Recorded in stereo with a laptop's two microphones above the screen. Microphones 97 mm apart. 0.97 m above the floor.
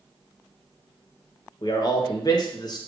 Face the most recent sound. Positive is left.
turn(degrees=45)  # may be behind; listen again after turning